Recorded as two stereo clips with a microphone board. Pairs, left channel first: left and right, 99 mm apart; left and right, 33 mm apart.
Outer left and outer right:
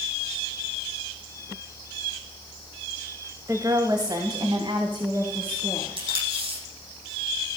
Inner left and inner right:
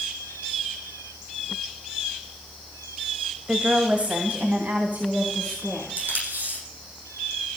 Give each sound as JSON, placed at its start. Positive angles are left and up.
{"t": 3.5, "sound": "a woman speaking", "side_deg": -35, "distance_m": 1.5}
{"t": 6.0, "sound": "tape being pulled", "side_deg": -70, "distance_m": 8.0}